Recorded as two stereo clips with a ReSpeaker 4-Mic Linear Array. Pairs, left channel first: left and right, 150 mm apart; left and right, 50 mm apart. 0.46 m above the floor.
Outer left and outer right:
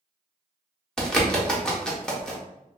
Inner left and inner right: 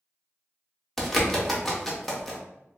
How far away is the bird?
About 0.6 m.